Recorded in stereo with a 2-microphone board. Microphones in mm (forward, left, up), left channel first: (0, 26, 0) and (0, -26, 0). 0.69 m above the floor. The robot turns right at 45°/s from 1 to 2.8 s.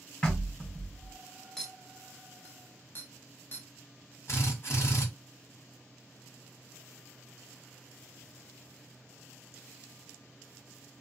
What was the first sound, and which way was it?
Knocking, 20° left (ahead or behind).